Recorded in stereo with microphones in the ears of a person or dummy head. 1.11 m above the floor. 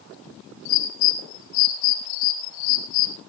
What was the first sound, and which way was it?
A bird, 75° left (ahead or behind).